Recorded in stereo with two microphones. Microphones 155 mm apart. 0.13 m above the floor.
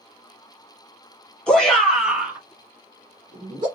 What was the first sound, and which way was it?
A shout, 5° left (ahead or behind).